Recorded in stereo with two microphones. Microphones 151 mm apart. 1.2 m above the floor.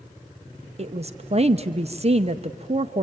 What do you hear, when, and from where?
0.8 s a woman speaking: 45° right (ahead or behind), 0.6 m